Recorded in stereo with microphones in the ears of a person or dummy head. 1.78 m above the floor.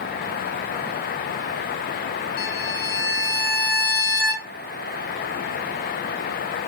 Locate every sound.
2.4 s a violin: 50° left (ahead or behind), 1.1 m